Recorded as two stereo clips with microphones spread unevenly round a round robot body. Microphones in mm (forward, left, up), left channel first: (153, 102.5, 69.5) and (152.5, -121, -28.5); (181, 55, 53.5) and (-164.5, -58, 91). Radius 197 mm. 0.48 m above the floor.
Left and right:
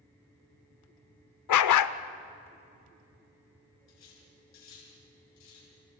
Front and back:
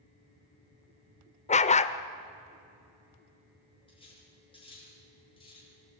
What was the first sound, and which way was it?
A dog barking, 90° left.